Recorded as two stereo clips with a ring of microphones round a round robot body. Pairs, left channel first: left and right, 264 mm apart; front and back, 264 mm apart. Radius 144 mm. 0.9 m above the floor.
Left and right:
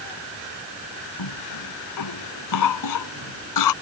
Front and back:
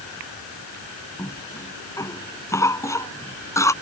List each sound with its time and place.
1.2 s a cough: 80° left